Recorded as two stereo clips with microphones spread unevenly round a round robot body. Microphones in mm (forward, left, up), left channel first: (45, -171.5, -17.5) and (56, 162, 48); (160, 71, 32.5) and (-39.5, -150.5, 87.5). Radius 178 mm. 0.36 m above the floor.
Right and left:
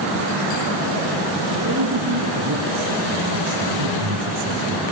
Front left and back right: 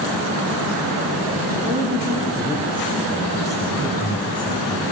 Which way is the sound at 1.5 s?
150° left.